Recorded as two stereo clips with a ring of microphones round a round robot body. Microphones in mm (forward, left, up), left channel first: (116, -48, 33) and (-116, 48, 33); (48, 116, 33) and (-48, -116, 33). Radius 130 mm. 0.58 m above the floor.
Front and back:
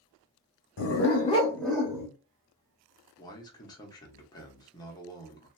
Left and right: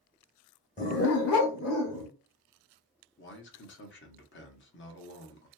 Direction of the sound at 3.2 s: 50° left.